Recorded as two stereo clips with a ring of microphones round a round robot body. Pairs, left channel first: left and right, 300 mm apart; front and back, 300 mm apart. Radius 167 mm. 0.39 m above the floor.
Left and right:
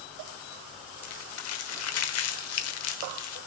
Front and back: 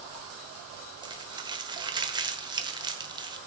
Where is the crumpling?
105° left, 1.1 m.